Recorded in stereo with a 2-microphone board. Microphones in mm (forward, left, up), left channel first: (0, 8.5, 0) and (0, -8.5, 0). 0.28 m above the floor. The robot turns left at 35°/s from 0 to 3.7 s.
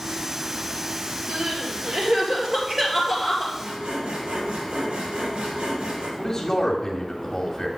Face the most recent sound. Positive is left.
turn(degrees=30)  # may be behind; listen again after turning